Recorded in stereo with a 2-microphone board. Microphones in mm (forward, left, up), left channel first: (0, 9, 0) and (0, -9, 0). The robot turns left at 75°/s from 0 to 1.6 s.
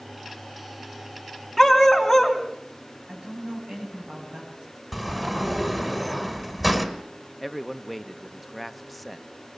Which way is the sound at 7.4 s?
5° left (ahead or behind).